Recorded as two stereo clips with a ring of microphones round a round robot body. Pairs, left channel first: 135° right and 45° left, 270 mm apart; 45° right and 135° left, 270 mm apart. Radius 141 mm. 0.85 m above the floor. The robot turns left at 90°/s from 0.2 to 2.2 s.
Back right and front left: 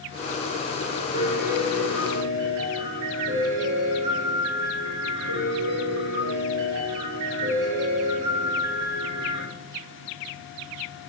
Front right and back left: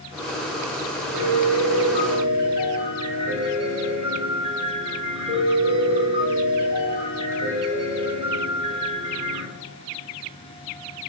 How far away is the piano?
About 4.5 m.